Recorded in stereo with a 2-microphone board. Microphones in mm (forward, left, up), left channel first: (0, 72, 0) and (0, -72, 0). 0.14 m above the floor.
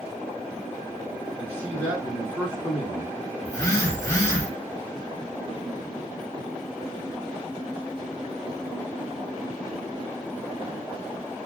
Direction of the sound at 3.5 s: 25° left (ahead or behind).